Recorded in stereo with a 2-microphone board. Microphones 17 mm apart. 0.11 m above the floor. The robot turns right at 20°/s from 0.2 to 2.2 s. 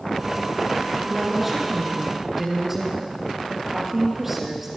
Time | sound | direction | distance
1.0 | a woman speaking | 5° left (ahead or behind) | 2.5 m